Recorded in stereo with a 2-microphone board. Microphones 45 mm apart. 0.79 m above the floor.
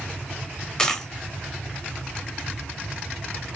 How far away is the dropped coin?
About 0.8 m.